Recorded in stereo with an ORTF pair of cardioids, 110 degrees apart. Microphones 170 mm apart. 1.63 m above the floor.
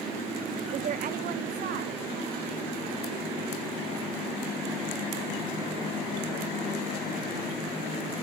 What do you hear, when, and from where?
0.7 s a woman speaking: 40° right, 0.6 m; by 7.8 s 75° right, 7.5 m